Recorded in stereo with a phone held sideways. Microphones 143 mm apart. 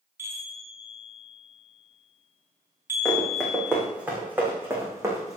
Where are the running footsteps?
Centre (ahead or behind), 5 m; by 5.4 s 25° right (ahead or behind), 4.5 m.